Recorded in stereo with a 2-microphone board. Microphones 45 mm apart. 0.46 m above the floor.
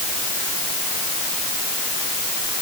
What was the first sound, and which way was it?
Only background noise.